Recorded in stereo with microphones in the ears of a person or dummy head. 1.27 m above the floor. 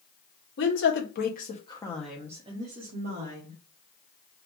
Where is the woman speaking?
55° left (ahead or behind), 1.0 m; by 3.6 s 60° right (ahead or behind), 1.0 m.